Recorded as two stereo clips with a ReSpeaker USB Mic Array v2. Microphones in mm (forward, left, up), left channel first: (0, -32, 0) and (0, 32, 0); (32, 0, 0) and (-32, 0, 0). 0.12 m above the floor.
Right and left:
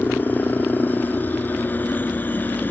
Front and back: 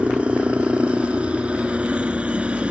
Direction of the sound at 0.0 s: 120° right.